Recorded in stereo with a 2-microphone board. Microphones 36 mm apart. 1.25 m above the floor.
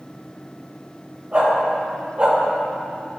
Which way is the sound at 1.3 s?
35° right (ahead or behind).